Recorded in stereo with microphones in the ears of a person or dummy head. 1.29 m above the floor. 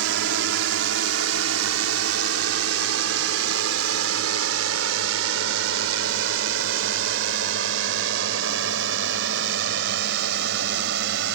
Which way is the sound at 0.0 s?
75° right (ahead or behind).